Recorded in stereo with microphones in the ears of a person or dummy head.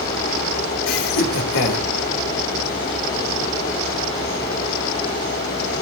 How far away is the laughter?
About 4.5 m.